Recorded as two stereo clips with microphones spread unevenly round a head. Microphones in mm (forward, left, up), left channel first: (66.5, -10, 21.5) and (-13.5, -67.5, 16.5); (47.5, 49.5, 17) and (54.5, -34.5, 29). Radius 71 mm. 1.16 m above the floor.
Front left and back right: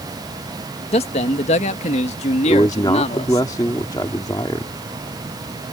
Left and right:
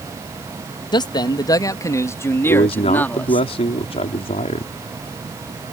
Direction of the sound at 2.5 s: 100° left.